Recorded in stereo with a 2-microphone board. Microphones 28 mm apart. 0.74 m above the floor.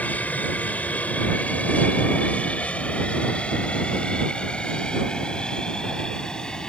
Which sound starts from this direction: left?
An aircraft, at 0.0 s.